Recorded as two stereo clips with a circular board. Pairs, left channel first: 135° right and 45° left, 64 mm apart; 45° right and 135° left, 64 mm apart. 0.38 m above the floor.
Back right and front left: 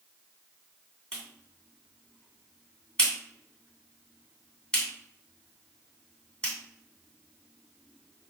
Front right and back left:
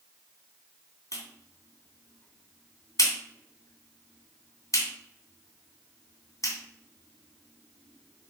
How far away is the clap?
About 2.5 m.